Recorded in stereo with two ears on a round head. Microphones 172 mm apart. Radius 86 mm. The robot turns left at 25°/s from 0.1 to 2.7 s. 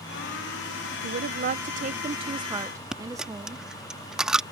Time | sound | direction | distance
1.0 | a woman speaking | 120° right | ?
2.9 | a dropped coin | 5° right (ahead or behind) | ?